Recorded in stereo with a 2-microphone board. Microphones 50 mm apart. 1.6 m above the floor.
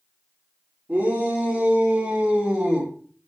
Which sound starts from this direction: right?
A shout, at 0.9 s.